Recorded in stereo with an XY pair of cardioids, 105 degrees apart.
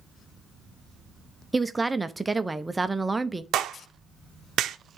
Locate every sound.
1.5 s a woman speaking: 10° right, 0.6 m
3.5 s a clap: 70° right, 0.7 m